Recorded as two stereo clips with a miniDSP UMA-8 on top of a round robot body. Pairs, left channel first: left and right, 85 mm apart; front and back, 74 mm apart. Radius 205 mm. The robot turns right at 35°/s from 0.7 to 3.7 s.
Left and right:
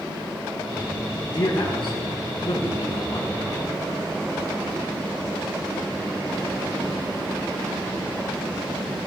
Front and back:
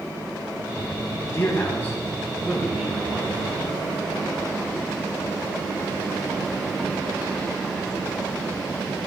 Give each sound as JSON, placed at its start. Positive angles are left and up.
{"t": 1.3, "sound": "a man speaking", "azimuth_deg": 55, "distance_m": 4.0}